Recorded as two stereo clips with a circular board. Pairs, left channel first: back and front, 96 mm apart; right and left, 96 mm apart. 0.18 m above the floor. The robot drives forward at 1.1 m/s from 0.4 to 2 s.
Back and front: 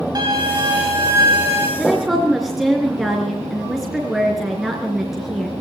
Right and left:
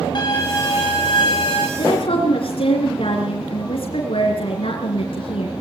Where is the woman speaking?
80° right, 3.5 m; by 5.5 s 85° right, 3.5 m.